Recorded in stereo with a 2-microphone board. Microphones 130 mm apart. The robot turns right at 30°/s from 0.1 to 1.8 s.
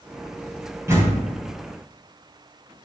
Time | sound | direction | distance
0.9 | a door slam | 20° right (ahead or behind) | 4 m